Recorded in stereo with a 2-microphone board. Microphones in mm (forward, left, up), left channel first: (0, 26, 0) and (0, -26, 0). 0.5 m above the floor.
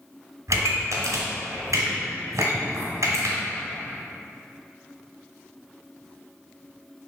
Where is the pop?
85° right, 1.7 m.